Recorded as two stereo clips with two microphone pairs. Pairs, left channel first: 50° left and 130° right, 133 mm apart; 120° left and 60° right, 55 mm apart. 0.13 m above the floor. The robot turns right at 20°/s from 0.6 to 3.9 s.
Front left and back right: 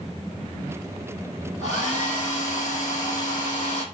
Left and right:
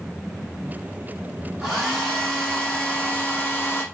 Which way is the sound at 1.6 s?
25° left.